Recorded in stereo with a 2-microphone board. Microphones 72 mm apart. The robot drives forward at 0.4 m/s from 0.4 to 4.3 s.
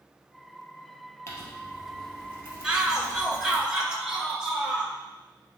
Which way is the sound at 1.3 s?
35° left (ahead or behind).